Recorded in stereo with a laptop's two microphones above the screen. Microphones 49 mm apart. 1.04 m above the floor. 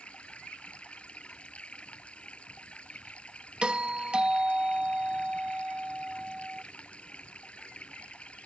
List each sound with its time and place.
0.0 s running water: 25° left (ahead or behind)
3.6 s a doorbell: 20° right (ahead or behind)